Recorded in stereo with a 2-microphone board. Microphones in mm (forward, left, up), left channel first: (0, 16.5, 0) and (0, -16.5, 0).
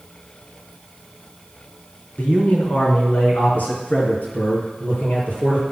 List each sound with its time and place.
2.2 s a man speaking: 55° left (ahead or behind), 2.5 m; by 5.6 s 65° left (ahead or behind), 4.5 m